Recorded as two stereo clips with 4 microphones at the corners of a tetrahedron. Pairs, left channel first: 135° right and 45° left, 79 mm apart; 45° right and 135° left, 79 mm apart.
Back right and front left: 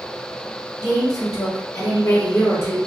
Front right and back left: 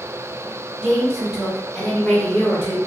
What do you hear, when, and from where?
0.8 s a woman speaking: 155° right, 1.9 m; by 2.8 s 100° right, 1.3 m